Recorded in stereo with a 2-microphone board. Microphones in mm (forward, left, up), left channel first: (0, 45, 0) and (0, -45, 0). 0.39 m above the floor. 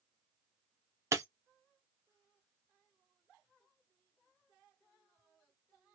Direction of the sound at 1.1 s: 30° right (ahead or behind).